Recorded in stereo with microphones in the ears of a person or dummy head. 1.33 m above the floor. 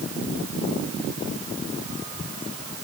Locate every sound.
Only background noise.